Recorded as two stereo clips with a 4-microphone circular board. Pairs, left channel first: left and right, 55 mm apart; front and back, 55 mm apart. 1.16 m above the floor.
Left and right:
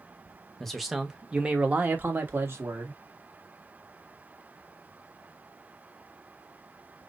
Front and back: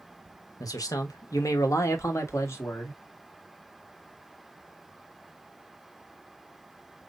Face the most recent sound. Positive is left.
turn(degrees=-45)